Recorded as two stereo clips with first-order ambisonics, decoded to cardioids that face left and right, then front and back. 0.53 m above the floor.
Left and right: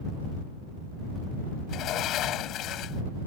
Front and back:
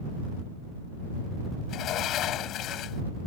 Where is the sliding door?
45° left.